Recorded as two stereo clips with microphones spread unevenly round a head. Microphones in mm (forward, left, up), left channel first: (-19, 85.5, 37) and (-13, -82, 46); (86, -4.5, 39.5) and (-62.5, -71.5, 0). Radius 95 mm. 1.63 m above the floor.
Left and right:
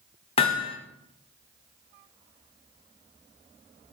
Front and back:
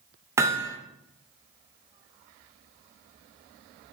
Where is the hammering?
120° left, 0.9 m.